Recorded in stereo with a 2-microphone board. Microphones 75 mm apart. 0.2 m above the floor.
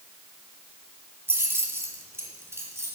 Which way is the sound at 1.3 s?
30° right (ahead or behind).